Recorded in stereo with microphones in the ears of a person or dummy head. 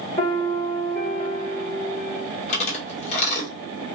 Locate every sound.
0.2 s a piano: 45° left (ahead or behind), 1.4 m
2.5 s chewing: 40° left (ahead or behind), 1.4 m